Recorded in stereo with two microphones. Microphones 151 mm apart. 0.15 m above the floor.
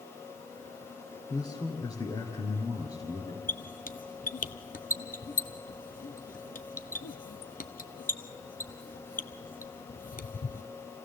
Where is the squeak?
75° left (ahead or behind), 0.7 m.